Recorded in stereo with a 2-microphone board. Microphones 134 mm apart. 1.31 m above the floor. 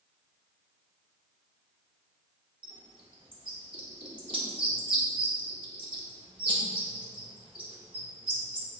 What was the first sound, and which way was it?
A bird, 40° right (ahead or behind).